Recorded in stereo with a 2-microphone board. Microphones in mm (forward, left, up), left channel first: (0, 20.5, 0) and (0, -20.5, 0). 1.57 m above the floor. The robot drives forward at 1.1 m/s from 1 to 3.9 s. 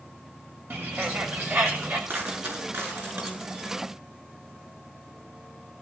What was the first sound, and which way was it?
A bird, 65° right (ahead or behind).